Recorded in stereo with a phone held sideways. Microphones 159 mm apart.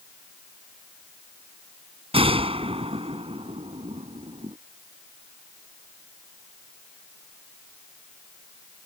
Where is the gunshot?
35° right (ahead or behind).